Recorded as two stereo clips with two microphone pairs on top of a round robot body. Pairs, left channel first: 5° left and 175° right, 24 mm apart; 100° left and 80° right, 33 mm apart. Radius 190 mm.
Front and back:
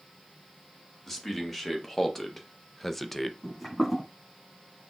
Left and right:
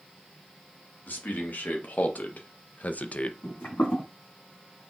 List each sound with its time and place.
1.1 s a man speaking: 85° left, 1.8 m; by 3.3 s 90° left, 0.7 m
3.4 s footsteps: 95° left, 2.5 m